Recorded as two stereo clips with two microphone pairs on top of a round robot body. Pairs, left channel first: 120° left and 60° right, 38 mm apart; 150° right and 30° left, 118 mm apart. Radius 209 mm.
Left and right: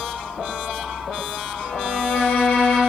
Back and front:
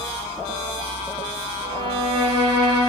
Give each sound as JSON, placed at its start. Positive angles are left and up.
{"t": 1.6, "sound": "a violin", "azimuth_deg": 75, "distance_m": 2.5}